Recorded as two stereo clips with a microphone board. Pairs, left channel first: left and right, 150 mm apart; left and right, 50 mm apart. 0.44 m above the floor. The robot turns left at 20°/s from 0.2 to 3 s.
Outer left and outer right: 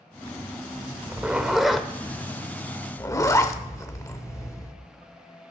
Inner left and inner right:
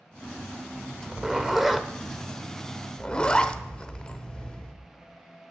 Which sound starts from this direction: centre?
A zipper, at 1.1 s.